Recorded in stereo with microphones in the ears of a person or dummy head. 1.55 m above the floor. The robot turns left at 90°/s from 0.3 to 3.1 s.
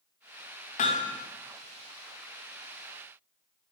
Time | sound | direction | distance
0.8 | hammering | 45° left | 1.2 m